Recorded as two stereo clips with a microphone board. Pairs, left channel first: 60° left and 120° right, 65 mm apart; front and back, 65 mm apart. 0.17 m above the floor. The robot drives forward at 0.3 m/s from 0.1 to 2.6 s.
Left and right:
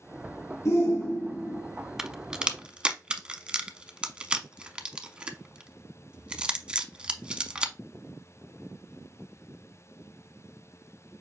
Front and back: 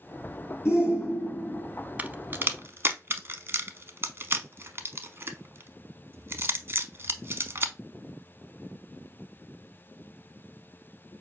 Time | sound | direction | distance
0.7 | a shout | 40° left | 3 m
2.0 | a crack | 170° left | 0.5 m